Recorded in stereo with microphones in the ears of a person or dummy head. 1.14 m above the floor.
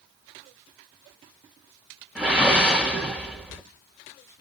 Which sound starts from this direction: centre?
A whoosh, at 2.1 s.